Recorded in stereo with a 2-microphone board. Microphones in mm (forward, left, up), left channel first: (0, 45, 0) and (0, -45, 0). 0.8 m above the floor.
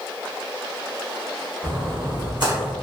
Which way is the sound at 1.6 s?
55° right (ahead or behind).